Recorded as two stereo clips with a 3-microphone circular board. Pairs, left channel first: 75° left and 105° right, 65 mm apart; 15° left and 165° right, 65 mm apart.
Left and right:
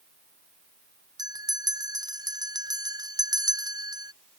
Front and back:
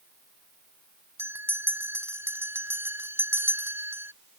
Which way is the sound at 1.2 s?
110° right.